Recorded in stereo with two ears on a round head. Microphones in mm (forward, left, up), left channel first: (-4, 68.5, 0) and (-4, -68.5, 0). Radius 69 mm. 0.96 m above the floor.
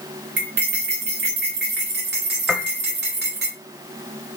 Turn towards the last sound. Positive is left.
turn(degrees=-5)  # may be behind; listen again after turning